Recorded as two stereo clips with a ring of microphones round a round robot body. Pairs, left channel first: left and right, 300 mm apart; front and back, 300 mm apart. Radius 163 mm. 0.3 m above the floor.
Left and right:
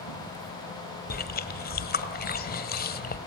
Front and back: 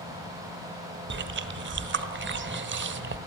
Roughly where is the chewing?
Behind left.